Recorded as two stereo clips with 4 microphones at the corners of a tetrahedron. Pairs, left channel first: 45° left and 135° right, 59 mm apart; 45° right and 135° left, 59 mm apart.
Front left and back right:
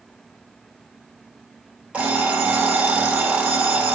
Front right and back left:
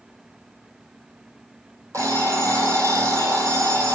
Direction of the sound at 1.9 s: 160° left.